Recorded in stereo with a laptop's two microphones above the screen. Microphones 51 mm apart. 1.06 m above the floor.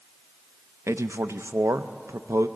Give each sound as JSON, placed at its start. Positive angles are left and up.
{"t": 0.9, "sound": "a man speaking", "side_deg": -75, "distance_m": 0.6}